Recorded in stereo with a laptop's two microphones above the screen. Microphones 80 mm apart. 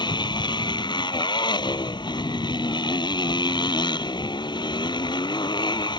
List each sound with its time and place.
0.0 s a motorcycle: 80° left